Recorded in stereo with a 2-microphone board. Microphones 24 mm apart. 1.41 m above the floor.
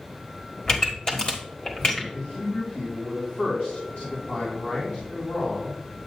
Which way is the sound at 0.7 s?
35° left (ahead or behind).